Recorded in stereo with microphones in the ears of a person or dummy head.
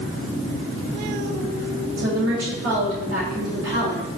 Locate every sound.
2.0 s a woman speaking: 85° right, 4 m